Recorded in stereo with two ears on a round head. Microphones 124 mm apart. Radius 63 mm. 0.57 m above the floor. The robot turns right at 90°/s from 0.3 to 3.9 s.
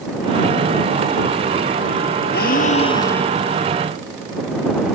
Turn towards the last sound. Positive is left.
turn(degrees=-130)